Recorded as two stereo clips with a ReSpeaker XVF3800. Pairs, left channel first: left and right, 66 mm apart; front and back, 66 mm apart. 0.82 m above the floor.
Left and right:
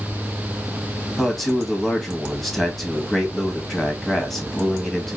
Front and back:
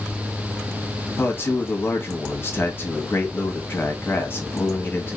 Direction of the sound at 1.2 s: 5° left.